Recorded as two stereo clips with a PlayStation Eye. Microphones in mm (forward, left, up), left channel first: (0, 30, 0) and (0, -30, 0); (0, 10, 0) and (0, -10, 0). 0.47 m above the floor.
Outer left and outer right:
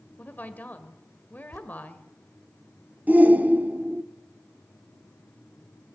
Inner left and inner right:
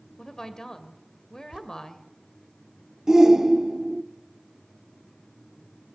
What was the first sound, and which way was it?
A woman speaking, 30° left (ahead or behind).